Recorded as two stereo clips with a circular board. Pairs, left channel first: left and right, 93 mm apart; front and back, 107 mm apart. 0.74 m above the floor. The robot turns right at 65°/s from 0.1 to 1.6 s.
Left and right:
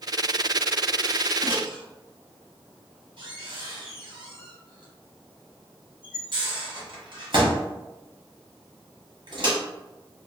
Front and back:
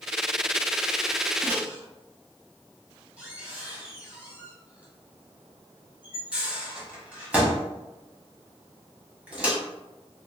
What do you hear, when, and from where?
1.4 s a microwave: 115° right, 0.9 m; by 9.6 s 100° right, 0.9 m